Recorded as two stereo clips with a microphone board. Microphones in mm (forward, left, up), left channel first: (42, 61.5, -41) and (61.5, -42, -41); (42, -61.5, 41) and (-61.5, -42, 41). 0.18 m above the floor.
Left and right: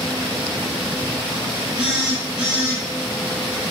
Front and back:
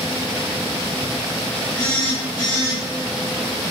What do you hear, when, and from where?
1.8 s a phone buzzing: 5° right, 1.2 m